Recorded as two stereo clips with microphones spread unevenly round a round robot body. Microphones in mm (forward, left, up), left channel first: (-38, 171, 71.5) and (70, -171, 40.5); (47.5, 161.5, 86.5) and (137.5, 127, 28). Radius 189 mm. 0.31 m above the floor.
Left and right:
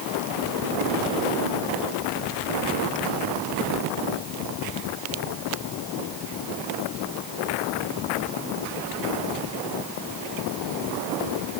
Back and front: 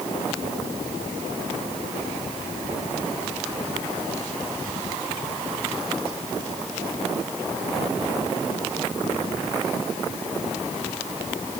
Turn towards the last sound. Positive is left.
No sound to turn to.